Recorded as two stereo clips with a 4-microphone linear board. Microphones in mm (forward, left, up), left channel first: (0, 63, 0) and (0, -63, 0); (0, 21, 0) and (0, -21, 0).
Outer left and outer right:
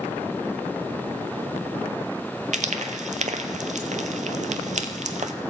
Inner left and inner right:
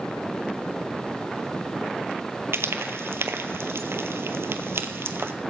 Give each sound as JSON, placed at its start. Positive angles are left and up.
{"t": 2.5, "sound": "frying", "side_deg": -85, "distance_m": 0.7}